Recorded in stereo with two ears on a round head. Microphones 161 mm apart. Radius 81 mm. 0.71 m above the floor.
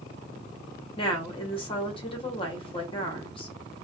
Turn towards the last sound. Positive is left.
turn(degrees=30)  # may be behind; listen again after turning